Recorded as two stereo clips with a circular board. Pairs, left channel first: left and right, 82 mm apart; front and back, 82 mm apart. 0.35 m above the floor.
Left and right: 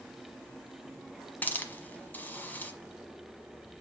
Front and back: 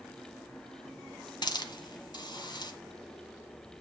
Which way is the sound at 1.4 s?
20° left.